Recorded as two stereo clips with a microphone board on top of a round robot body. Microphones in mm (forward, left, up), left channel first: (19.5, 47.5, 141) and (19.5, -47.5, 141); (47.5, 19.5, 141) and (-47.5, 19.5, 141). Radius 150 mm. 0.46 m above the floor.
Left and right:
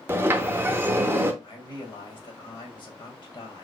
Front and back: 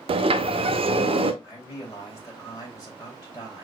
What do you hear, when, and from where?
0.1 s a sliding door: 160° right, 0.6 m
1.4 s a man speaking: 55° left, 2.5 m